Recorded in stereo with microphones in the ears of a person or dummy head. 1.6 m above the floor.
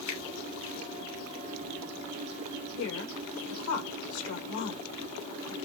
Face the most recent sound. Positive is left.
turn(degrees=75)  # may be behind; listen again after turning